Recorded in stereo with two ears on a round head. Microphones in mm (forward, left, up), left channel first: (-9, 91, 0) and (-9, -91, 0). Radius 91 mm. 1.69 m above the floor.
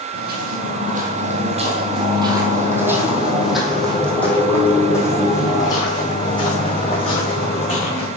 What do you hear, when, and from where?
0.1 s footsteps: 50° right (ahead or behind), 2.5 m; by 8.1 s 30° left (ahead or behind), 5 m